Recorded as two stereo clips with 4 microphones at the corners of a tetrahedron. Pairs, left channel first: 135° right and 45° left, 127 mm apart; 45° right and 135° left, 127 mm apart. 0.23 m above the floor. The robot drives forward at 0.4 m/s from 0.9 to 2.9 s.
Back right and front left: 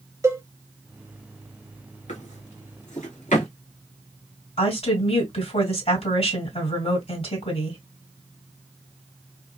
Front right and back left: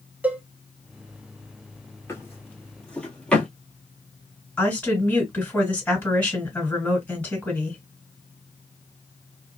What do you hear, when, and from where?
0.2 s a cowbell: 80° left, 0.5 m
2.1 s a drawer: 115° right, 1.1 m; by 3.5 s 130° right, 1.3 m
4.6 s a woman speaking: 120° right, 2 m